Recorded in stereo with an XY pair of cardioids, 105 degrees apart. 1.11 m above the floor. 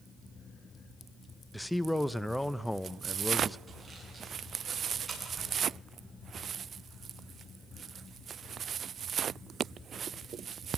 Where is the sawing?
15° right, 9.5 m.